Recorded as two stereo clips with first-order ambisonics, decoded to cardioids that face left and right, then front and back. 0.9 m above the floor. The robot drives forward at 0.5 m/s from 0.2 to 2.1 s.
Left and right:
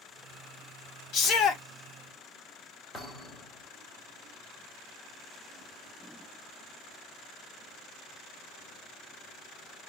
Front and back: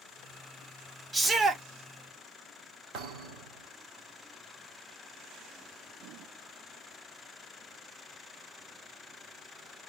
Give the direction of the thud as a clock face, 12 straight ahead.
6 o'clock.